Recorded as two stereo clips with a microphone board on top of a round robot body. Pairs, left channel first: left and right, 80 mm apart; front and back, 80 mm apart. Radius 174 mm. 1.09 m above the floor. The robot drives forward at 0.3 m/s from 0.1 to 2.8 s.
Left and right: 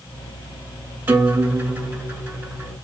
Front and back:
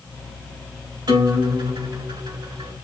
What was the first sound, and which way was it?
A guitar, 155° right.